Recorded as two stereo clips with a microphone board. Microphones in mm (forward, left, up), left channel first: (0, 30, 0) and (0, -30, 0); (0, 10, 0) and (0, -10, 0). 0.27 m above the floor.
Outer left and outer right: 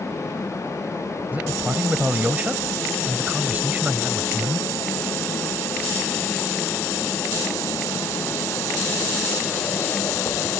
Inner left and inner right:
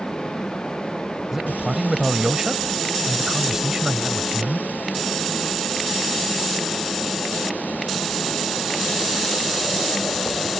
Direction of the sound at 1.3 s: 25° right (ahead or behind).